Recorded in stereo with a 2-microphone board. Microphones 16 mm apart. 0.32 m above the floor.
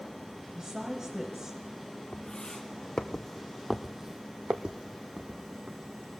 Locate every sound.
0.6 s a woman speaking: 35° right (ahead or behind), 2 m; by 1.6 s 25° right (ahead or behind), 1.4 m
2.1 s footsteps: 45° left (ahead or behind), 1.8 m; by 6.0 s 80° right, 1.9 m